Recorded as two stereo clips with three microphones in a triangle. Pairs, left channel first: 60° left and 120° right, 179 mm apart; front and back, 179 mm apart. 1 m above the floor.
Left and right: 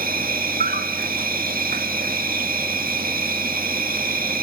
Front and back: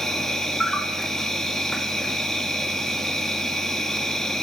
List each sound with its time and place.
0.0 s an insect: 85° right, 1.9 m